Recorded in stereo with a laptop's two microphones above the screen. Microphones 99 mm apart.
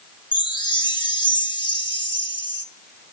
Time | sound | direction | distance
0.3 | a chime | 50° left (ahead or behind) | 1.9 m